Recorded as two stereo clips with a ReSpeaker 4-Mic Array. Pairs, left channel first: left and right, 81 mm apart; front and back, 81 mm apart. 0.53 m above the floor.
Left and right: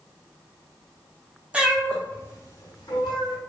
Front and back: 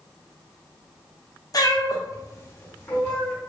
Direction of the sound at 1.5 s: 20° right.